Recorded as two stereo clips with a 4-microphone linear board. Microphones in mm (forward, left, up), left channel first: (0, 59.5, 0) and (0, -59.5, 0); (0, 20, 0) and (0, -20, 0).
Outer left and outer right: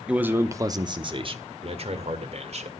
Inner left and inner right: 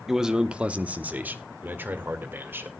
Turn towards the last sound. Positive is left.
turn(degrees=-65)  # may be behind; listen again after turning